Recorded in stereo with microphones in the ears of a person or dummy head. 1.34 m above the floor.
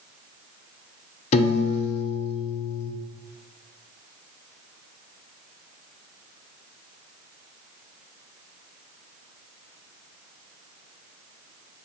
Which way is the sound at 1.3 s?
35° left (ahead or behind).